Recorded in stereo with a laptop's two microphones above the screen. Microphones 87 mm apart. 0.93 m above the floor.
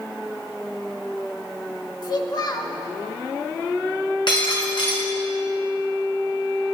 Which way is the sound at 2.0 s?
45° left (ahead or behind).